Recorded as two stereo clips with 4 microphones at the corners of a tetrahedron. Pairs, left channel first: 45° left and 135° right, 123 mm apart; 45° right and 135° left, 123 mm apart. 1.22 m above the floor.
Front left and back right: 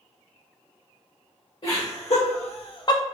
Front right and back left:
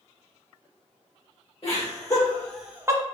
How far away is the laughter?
About 1.3 m.